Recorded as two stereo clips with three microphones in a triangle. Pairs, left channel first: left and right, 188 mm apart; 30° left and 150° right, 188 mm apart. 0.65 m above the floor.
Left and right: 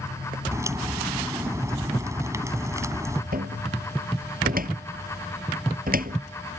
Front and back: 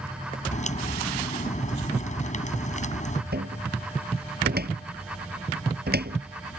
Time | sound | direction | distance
0.5 | a crack | 15° right | ?
3.3 | a cupboard door | 125° right | ?